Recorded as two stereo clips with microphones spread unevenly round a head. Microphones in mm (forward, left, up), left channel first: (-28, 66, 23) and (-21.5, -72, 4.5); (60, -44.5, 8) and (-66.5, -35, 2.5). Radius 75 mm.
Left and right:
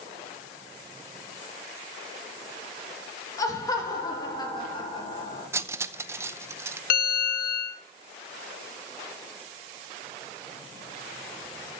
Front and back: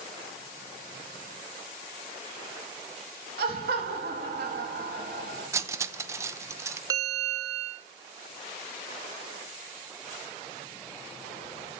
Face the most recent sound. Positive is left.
turn(degrees=105)